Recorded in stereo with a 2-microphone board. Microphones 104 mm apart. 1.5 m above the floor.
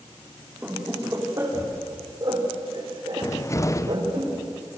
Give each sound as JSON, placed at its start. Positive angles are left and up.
{"t": 0.6, "sound": "laughter", "side_deg": -15, "distance_m": 4.0}
{"t": 3.2, "sound": "a cupboard door", "side_deg": 30, "distance_m": 0.9}